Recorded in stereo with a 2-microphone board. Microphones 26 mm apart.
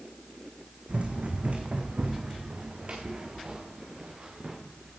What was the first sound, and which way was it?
Running footsteps, 55° right (ahead or behind).